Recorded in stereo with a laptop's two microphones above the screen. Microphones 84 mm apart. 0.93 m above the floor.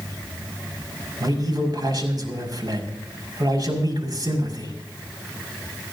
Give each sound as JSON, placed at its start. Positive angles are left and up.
{"t": 1.2, "sound": "a man speaking", "side_deg": -50, "distance_m": 5.5}